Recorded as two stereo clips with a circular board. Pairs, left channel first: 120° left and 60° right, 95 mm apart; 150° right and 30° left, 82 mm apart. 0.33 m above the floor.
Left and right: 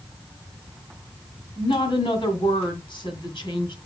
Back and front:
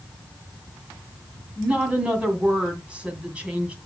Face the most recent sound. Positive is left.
turn(degrees=105)